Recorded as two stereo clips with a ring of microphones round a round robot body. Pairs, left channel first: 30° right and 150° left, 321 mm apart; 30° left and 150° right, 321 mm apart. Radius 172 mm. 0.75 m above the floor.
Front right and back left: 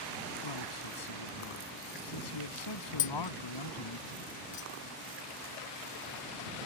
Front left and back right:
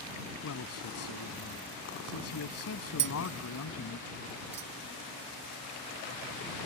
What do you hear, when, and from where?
0.4 s a man speaking: 15° right
3.0 s tapping: 95° right